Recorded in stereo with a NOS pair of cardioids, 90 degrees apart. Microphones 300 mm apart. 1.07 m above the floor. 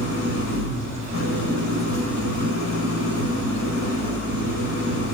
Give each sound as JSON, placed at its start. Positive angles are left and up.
{"t": 0.0, "sound": "an engine running", "azimuth_deg": 70, "distance_m": 5.0}